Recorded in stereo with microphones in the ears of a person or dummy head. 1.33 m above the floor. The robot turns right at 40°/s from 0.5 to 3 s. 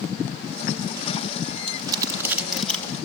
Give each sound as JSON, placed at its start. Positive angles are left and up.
{"t": 1.7, "sound": "crumpling", "side_deg": -35, "distance_m": 3.0}